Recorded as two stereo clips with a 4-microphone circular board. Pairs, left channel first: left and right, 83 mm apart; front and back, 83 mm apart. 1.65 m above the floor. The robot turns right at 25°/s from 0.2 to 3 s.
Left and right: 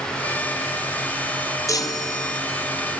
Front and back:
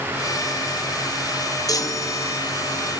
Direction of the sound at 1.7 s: 40° left.